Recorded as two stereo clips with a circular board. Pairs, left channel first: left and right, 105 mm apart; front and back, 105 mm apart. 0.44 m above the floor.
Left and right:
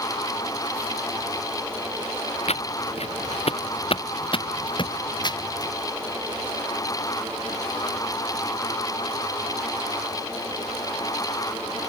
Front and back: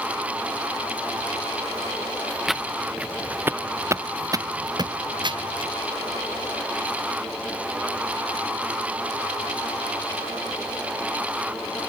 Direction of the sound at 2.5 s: 90° left.